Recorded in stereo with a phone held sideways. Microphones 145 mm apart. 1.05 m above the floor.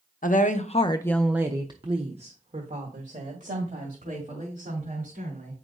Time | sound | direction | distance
0.2 | a woman speaking | 70° left (ahead or behind) | 0.8 m